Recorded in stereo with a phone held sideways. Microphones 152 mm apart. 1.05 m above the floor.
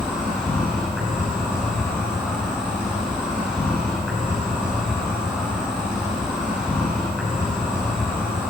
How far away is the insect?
About 5.5 m.